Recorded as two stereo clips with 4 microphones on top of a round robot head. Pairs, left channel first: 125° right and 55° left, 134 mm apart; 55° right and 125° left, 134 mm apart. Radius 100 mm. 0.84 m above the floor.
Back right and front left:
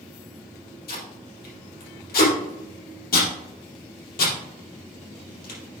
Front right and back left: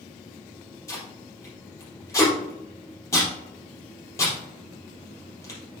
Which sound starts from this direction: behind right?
Tape being pulled, at 0.9 s.